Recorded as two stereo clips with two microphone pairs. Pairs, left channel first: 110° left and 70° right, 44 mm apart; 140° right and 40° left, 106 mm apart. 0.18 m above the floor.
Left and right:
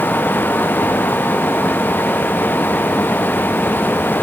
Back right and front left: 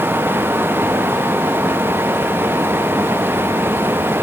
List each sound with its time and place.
Only background noise.